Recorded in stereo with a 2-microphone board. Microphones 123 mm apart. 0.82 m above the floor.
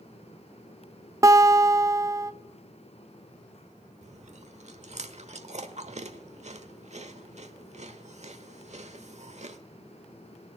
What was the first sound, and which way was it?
A guitar, 25° right (ahead or behind).